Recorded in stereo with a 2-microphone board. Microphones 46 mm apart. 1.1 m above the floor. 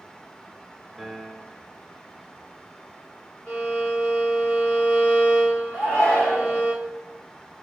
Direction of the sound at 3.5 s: 35° left (ahead or behind).